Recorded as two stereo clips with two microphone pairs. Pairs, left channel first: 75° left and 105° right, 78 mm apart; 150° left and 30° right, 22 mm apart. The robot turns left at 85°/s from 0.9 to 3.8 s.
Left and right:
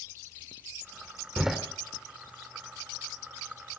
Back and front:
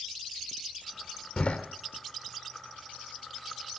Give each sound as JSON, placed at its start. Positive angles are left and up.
{"t": 1.4, "sound": "a door slam", "azimuth_deg": 180, "distance_m": 1.7}